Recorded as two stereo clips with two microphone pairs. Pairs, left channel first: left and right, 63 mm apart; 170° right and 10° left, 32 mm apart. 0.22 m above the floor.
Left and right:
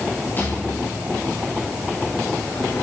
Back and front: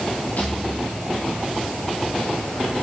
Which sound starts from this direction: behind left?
A rattle, at 0.4 s.